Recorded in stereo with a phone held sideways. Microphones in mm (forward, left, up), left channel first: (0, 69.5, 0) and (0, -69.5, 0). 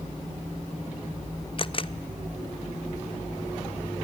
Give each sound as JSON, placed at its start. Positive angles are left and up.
{"t": 1.6, "sound": "a camera shutter", "side_deg": 40, "distance_m": 0.6}